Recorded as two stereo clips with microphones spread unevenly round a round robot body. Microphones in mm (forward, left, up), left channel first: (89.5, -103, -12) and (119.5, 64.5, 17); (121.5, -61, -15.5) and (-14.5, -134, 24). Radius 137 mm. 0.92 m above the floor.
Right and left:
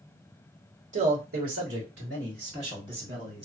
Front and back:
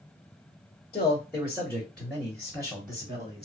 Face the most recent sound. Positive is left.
turn(degrees=150)